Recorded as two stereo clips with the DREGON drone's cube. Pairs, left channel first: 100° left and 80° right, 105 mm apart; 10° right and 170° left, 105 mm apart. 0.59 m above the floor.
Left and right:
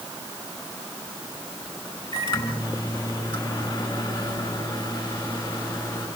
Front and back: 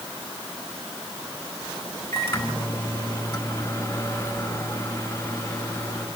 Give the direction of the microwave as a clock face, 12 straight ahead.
10 o'clock.